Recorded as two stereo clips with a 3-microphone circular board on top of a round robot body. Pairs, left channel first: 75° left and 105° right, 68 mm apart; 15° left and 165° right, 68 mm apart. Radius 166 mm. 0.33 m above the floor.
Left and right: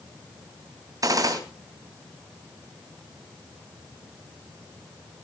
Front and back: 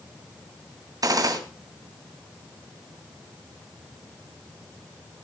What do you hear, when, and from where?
1.0 s a gunshot: 135° right, 3 m